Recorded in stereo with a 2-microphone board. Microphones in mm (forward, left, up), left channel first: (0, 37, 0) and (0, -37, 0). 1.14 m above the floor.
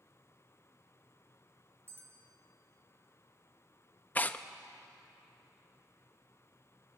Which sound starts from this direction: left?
Tearing paper, at 4.2 s.